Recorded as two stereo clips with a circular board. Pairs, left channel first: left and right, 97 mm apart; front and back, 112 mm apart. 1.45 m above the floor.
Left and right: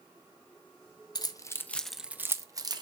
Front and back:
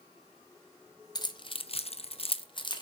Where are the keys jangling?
50° left, 0.8 m; by 2.8 s 45° right, 1.0 m.